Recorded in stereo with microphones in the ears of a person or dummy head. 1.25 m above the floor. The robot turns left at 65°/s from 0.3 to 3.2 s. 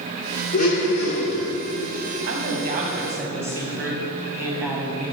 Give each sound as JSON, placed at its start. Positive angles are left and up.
{"t": 0.5, "sound": "a blender", "azimuth_deg": 140, "distance_m": 1.5}
{"t": 2.3, "sound": "a man speaking", "azimuth_deg": -105, "distance_m": 1.1}